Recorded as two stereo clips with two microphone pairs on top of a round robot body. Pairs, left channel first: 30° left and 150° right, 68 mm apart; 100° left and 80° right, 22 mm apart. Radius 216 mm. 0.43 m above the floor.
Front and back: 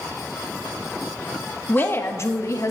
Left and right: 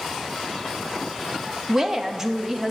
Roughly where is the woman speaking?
Ahead right.